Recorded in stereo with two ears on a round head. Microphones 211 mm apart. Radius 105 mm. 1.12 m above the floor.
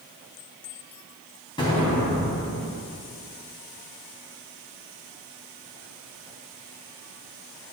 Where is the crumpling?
No crumpling in this recording.